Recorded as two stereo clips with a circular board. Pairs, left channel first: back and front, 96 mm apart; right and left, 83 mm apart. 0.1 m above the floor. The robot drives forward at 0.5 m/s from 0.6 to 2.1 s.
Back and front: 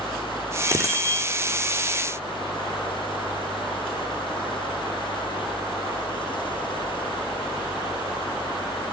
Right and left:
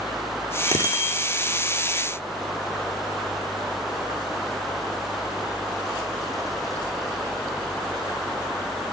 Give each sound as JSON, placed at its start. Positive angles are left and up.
{"t": 0.7, "sound": "a bicycle bell", "azimuth_deg": -50, "distance_m": 4.5}